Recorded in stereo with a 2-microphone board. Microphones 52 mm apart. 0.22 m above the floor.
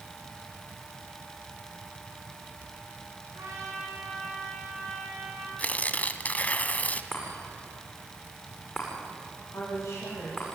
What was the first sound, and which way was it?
A trumpet, 85° right.